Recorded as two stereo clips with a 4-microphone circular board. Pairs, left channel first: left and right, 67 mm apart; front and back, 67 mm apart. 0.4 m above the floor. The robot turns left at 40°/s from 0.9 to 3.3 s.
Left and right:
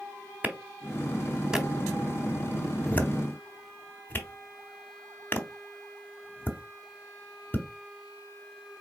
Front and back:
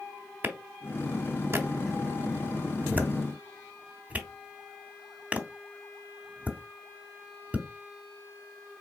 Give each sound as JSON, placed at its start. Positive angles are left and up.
{"t": 0.4, "sound": "a clap", "azimuth_deg": -140, "distance_m": 0.9}